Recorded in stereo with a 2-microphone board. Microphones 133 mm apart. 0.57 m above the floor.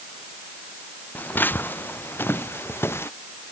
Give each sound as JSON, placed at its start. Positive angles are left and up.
{"t": 1.1, "sound": "footsteps", "side_deg": 15}